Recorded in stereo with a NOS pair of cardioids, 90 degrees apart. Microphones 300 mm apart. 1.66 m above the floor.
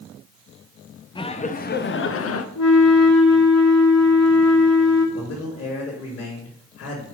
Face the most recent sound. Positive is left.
turn(degrees=50)